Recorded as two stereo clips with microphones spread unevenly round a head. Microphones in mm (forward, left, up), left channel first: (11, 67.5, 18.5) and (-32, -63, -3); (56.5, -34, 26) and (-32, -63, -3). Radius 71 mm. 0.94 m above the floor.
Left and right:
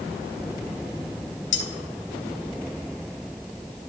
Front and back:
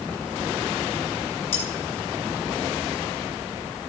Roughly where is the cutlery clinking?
Left.